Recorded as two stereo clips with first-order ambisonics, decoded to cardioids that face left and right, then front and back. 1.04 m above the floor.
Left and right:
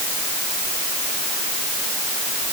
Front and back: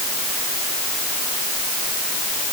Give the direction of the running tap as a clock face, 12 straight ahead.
No running tap in this recording.